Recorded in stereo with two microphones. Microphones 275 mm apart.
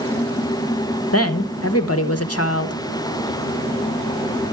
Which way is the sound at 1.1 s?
60° left (ahead or behind).